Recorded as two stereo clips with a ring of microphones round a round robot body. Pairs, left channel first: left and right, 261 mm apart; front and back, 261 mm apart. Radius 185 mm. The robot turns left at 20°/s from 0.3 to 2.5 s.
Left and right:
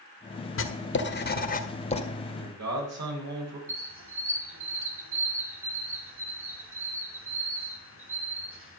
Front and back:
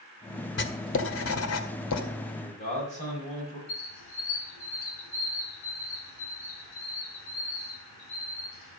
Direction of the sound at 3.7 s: 50° right.